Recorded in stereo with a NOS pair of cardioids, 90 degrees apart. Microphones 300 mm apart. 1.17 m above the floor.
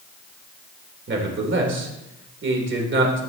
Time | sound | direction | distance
1.1 | a man speaking | 40° right | 3.5 m